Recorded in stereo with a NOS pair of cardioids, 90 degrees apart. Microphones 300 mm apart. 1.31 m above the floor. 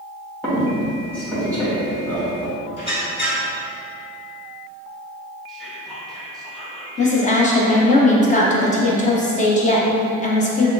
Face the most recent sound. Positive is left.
turn(degrees=25)